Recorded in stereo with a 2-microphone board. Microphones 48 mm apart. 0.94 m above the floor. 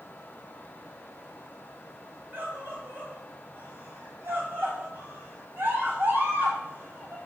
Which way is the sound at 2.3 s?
50° right (ahead or behind).